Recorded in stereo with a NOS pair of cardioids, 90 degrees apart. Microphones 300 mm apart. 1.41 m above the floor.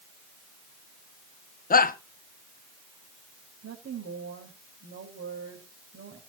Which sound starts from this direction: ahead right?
A woman speaking, at 3.6 s.